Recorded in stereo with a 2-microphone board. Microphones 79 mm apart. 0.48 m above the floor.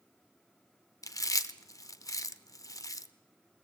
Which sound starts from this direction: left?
Chewing, at 1.0 s.